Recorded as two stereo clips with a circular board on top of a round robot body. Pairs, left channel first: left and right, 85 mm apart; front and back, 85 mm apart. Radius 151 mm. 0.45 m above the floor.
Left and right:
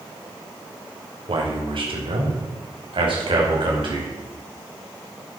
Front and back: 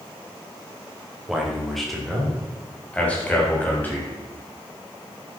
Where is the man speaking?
95° right, 3 m; by 4.1 s 70° right, 4.5 m.